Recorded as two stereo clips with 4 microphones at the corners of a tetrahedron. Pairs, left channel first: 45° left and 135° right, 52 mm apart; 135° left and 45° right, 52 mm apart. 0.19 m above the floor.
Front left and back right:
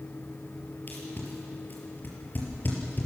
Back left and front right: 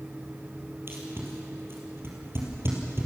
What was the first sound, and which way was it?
Tape being pulled, 5° right.